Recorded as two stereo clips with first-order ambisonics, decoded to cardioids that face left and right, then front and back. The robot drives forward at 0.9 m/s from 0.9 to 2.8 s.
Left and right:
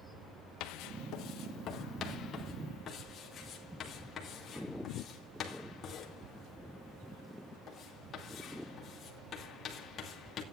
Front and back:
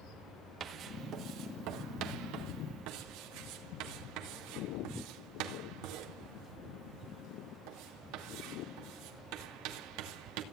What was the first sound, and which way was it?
Writing, 120° left.